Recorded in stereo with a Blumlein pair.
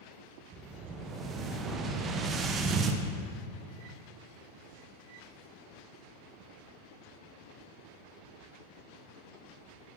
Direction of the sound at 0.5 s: 25° right.